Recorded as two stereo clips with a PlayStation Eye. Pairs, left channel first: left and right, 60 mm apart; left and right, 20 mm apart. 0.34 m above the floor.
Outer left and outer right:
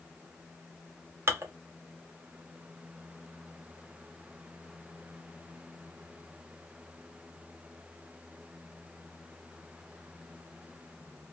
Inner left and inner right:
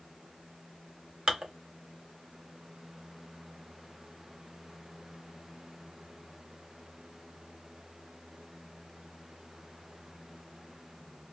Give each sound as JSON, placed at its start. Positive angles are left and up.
{"t": 1.3, "sound": "dishes clattering", "side_deg": -45, "distance_m": 0.8}